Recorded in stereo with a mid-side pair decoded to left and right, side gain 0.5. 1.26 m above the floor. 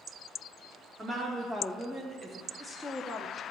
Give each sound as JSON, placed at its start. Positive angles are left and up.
{"t": 1.0, "sound": "a woman speaking", "azimuth_deg": -40, "distance_m": 2.5}